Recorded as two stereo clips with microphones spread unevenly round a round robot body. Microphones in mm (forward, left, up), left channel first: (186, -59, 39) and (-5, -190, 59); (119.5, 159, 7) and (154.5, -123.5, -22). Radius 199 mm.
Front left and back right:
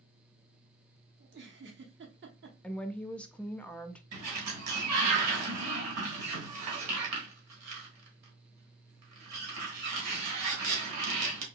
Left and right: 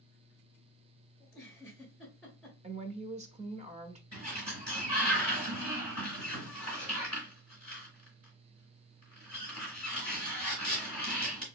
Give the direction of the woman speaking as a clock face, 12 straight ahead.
1 o'clock.